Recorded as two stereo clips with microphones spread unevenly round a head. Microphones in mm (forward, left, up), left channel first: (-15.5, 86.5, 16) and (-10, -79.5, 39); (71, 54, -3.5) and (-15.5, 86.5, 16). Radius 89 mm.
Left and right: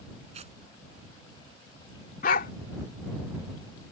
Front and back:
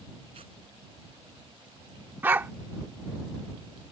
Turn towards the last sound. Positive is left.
turn(degrees=120)